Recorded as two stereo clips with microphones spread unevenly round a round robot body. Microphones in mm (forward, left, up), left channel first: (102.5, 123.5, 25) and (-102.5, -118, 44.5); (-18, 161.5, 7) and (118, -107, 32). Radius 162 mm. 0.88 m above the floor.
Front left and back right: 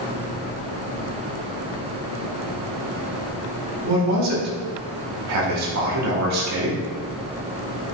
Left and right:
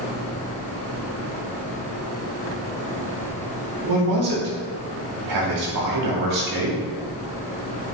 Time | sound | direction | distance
3.8 | a man speaking | 90° right | 2.5 m